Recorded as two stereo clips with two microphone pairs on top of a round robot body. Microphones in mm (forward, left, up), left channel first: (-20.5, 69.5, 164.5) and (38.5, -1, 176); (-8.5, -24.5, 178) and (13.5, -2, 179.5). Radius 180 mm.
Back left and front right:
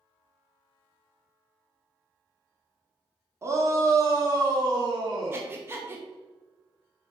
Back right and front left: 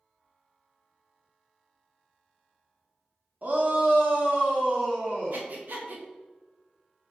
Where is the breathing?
20° left, 1.8 m.